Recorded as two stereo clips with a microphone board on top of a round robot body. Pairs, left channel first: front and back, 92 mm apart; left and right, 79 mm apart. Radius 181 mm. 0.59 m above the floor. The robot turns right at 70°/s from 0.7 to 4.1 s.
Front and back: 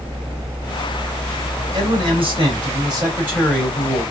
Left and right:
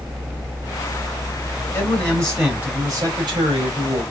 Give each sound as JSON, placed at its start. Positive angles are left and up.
{"t": 1.7, "sound": "a man speaking", "azimuth_deg": 140, "distance_m": 2.5}